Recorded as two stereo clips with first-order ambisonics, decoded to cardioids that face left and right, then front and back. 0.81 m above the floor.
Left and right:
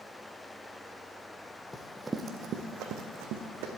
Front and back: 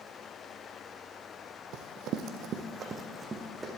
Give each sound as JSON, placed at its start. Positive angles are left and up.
{"t": 1.7, "sound": "running footsteps", "azimuth_deg": 170, "distance_m": 1.3}